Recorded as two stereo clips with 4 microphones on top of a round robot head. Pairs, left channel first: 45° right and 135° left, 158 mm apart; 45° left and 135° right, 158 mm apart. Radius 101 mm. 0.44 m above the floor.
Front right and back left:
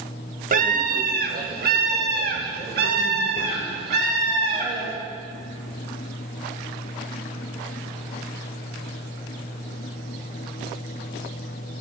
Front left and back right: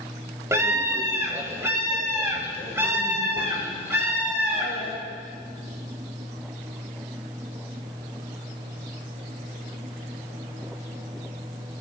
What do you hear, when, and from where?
0.5 s a scream: 150° left, 1.2 m